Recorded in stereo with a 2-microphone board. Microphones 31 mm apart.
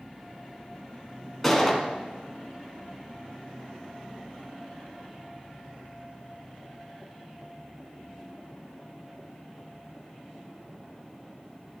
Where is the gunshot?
5° left (ahead or behind), 1.6 m.